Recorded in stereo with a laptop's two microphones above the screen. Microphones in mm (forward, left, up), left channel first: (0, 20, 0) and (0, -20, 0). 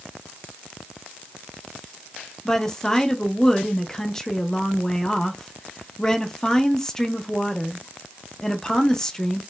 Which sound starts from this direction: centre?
A woman speaking, at 2.5 s.